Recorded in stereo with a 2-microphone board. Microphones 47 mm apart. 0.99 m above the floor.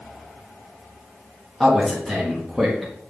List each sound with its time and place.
1.6 s a man speaking: centre (ahead or behind), 1.4 m